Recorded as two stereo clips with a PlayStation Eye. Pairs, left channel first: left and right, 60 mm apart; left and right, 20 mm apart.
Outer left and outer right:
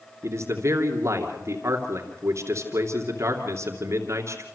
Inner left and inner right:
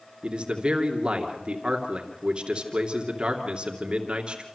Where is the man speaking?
55° right (ahead or behind), 2.5 m.